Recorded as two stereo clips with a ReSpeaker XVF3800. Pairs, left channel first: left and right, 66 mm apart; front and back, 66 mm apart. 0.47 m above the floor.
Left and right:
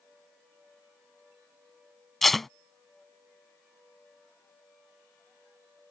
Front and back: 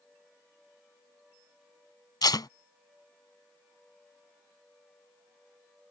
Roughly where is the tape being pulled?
Ahead.